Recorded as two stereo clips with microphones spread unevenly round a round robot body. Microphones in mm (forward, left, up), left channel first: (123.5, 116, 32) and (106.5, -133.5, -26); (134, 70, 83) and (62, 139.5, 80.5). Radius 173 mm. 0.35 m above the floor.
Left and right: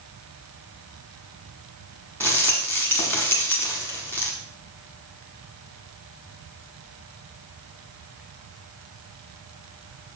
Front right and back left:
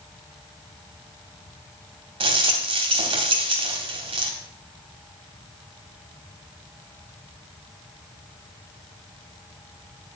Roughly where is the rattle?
Behind.